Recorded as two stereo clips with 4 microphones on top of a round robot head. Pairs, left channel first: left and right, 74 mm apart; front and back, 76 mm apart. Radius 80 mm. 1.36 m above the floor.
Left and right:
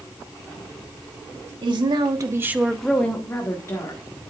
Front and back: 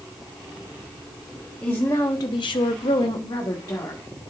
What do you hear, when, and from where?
1.6 s a woman speaking: 75° right, 1.3 m; by 4.0 s 45° left, 1.8 m